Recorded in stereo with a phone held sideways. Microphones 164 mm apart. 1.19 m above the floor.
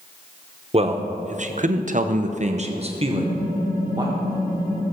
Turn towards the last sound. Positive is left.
turn(degrees=-60)  # may be behind; listen again after turning